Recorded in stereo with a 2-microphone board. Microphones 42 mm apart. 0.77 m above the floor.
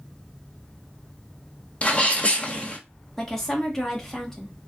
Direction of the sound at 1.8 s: 30° left (ahead or behind).